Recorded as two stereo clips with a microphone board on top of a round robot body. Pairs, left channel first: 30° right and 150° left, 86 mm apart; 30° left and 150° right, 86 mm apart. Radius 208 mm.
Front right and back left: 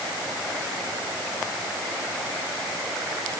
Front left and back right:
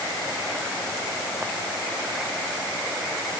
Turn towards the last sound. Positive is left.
No sound to turn to.